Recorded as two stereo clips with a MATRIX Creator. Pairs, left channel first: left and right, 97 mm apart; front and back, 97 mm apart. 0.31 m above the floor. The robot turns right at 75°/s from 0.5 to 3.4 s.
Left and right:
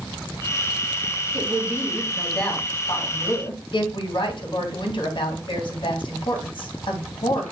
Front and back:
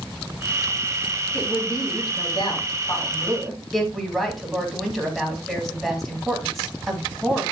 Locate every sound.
1.3 s a woman speaking: 65° right, 2.5 m; by 7.4 s 90° left, 2.5 m